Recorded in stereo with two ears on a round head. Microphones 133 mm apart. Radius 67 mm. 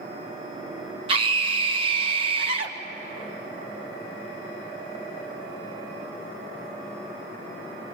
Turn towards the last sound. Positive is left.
turn(degrees=-35)  # may be behind; listen again after turning